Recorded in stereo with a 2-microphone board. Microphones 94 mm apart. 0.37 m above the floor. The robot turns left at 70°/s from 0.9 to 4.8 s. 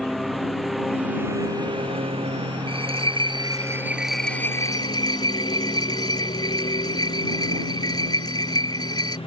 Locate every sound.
0.0 s a lawn mower: straight ahead; by 9.3 s 85° left
2.7 s a bell: 75° right; by 9.2 s 135° left